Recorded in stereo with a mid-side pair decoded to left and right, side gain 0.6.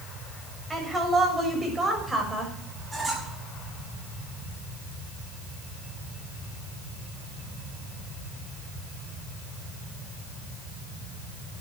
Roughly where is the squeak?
Ahead.